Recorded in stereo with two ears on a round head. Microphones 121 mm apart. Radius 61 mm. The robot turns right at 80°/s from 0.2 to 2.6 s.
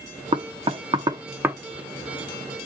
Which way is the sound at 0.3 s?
35° right (ahead or behind).